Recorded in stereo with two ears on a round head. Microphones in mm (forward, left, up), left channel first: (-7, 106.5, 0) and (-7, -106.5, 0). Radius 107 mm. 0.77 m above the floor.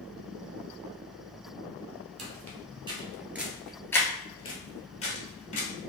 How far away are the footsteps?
About 1.0 m.